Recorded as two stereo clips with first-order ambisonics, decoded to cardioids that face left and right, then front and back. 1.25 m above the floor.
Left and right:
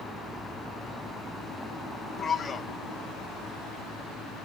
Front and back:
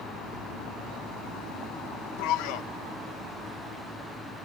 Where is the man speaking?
15° left, 0.8 m.